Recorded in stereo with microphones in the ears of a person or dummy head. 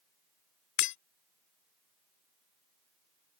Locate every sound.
0.8 s breaking glass: 60° left (ahead or behind)